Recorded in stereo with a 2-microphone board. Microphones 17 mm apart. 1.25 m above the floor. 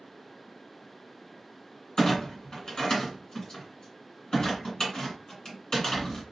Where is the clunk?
45° left (ahead or behind), 1.9 m.